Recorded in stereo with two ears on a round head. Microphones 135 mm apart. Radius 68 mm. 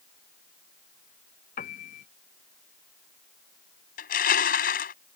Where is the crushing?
60° left (ahead or behind).